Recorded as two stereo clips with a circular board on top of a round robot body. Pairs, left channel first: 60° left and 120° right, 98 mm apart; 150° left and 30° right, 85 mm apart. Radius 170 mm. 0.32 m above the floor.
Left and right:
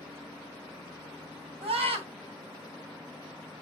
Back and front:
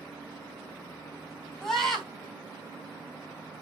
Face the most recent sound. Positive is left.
turn(degrees=-125)